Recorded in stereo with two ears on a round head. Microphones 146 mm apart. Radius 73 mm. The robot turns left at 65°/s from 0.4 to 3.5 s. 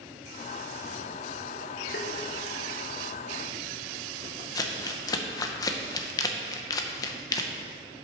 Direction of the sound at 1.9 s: 65° left (ahead or behind).